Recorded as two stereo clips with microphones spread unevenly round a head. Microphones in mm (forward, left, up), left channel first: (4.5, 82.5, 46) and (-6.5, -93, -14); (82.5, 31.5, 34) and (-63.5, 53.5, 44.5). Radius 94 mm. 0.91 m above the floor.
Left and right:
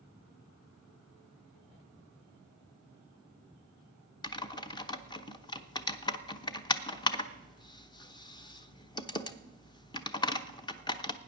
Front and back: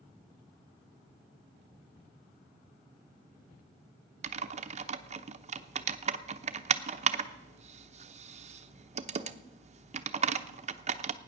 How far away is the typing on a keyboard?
About 0.9 m.